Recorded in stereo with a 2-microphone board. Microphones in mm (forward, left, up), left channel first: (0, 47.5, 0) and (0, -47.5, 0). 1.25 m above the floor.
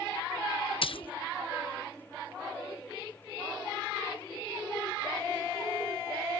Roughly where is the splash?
Left.